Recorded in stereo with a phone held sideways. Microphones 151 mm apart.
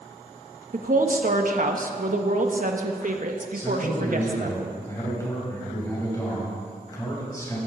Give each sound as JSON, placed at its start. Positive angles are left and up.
{"t": 0.7, "sound": "a woman speaking", "side_deg": -60, "distance_m": 1.5}
{"t": 3.5, "sound": "a man speaking", "side_deg": 20, "distance_m": 6.5}